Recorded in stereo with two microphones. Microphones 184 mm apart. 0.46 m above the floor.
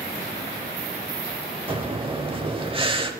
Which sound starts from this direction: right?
Breathing, at 1.7 s.